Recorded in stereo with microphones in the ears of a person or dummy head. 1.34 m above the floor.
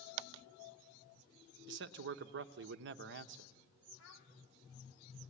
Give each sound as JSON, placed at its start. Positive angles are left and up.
{"t": 1.7, "sound": "a man speaking", "side_deg": -50, "distance_m": 0.9}
{"t": 4.0, "sound": "a child speaking", "side_deg": 65, "distance_m": 2.5}